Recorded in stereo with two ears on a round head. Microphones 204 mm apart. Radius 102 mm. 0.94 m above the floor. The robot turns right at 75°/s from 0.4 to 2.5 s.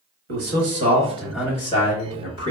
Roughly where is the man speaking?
Right.